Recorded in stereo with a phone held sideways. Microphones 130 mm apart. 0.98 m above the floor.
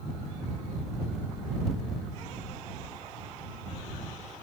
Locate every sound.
Only background noise.